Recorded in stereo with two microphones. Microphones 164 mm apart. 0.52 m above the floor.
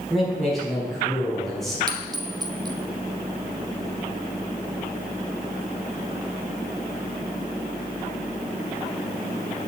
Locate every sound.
0.1 s a man speaking: centre (ahead or behind), 4.5 m
1.9 s a clink: 25° right (ahead or behind), 0.8 m